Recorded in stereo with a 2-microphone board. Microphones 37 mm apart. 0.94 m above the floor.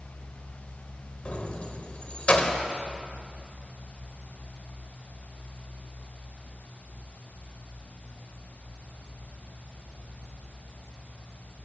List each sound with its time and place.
1.2 s keys jangling: 35° left (ahead or behind), 3 m